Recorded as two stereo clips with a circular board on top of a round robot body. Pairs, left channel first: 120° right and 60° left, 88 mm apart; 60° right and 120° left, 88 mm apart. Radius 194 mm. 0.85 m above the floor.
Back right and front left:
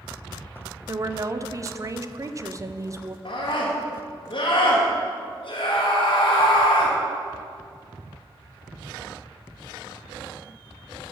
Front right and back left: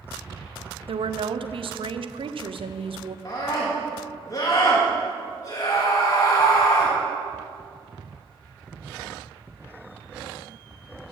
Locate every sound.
0.9 s a woman speaking: 110° left, 0.6 m
3.2 s a scream: 110° right, 1.9 m